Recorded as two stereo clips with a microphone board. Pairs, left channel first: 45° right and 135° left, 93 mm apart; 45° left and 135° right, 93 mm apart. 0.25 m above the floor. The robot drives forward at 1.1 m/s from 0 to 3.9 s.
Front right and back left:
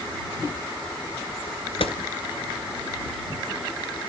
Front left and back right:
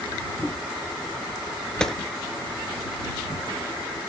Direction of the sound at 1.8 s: 35° right.